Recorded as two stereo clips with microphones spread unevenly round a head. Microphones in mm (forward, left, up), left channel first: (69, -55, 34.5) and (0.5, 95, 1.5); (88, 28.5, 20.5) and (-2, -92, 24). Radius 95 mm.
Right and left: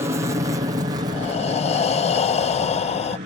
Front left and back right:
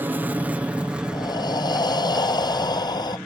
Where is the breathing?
10° right.